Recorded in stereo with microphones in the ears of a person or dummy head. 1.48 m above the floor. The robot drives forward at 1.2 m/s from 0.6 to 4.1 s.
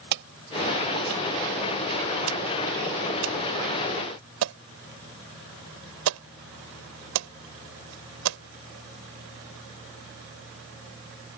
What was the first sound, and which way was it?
An alarm, 55° right (ahead or behind).